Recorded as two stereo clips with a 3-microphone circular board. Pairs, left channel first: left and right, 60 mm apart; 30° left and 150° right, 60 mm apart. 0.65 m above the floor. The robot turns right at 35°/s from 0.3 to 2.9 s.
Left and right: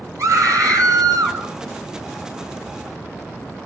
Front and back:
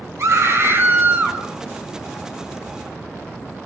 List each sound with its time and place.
0.2 s a scream: 120° right, 8.5 m; by 1.4 s 80° right, 8.5 m